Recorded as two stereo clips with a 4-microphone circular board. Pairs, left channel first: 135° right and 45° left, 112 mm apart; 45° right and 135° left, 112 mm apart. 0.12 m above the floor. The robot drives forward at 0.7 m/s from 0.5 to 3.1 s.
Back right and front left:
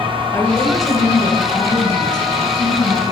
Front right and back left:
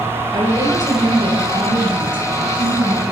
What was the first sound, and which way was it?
A woman speaking, 170° left.